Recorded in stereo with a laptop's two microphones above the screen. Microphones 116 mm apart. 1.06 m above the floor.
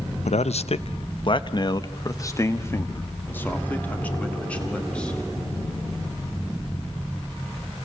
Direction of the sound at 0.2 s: 75° left (ahead or behind).